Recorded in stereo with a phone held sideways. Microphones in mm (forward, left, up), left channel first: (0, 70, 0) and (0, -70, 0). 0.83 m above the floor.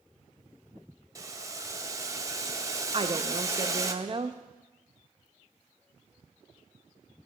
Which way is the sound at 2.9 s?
40° right (ahead or behind).